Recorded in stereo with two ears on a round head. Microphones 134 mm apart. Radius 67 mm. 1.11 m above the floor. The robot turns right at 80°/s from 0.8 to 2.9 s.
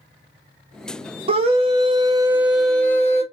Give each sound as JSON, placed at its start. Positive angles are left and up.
{"t": 1.3, "sound": "a scream", "azimuth_deg": -110, "distance_m": 0.6}